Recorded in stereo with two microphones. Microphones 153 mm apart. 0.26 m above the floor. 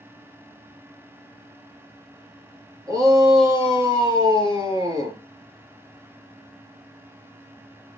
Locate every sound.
2.9 s a shout: 20° right (ahead or behind), 5 m